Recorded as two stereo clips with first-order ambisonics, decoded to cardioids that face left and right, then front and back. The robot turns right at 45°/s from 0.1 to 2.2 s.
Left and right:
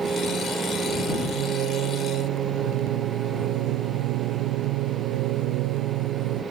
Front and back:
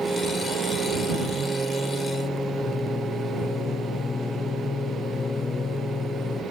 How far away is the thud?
I don't hear a thud.